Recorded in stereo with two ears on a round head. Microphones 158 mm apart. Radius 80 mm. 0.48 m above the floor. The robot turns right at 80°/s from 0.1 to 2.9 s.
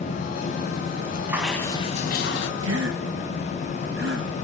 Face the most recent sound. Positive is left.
turn(degrees=-65)  # may be behind; listen again after turning